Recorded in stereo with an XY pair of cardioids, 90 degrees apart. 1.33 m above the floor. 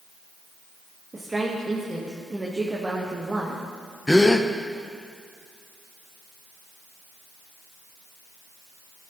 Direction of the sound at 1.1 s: 25° right.